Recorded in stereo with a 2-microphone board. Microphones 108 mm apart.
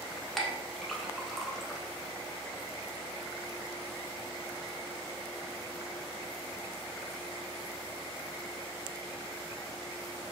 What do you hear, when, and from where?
0.4 s a clink: centre (ahead or behind), 0.7 m